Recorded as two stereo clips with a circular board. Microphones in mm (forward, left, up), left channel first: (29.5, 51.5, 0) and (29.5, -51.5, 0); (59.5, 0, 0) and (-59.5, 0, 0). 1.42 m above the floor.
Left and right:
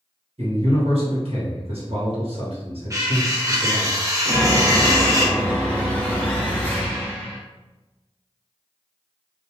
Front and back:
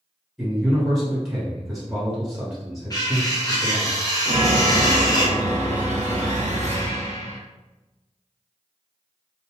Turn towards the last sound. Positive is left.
turn(degrees=165)